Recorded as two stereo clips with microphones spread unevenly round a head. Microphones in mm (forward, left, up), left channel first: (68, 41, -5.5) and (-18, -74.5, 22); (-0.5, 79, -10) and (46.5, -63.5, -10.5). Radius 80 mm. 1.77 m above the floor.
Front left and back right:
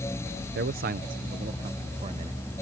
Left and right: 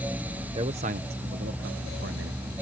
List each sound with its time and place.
0.6 s a man speaking: 135° right; by 2.4 s 85° right